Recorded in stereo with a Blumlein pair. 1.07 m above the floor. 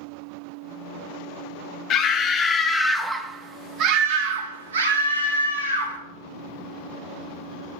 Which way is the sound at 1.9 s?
35° left.